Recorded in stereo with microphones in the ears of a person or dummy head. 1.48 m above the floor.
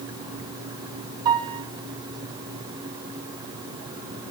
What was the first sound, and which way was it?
A piano, 25° right (ahead or behind).